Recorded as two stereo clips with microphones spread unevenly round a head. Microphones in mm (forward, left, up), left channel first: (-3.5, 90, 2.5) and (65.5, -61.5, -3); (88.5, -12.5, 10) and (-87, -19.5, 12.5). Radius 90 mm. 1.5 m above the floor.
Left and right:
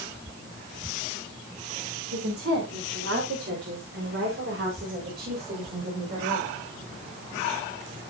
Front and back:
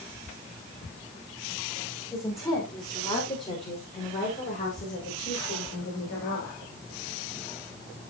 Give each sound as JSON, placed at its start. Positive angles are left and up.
{"t": 2.1, "sound": "a woman speaking", "azimuth_deg": -75, "distance_m": 5.0}